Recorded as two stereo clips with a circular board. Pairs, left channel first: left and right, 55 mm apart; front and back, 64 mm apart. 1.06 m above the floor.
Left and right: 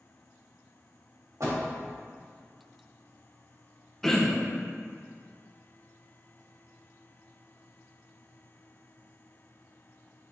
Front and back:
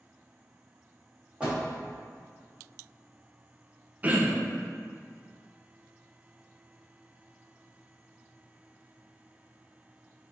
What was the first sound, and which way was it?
A door slam, 110° right.